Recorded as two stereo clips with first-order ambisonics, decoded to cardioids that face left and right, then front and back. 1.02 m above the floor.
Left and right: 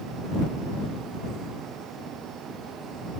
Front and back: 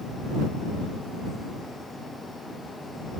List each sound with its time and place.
Only background noise.